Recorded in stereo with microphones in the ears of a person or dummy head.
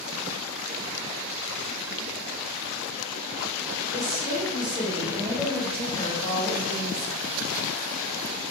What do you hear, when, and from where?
3.9 s a woman speaking: 30° right (ahead or behind), 1.4 m; by 7.2 s 75° left (ahead or behind), 0.8 m